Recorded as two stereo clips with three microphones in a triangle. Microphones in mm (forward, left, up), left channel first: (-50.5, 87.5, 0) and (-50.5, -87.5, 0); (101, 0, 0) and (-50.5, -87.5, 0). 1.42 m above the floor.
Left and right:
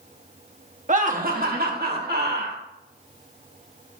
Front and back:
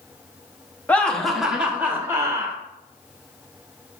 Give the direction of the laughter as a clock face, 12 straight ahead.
2 o'clock.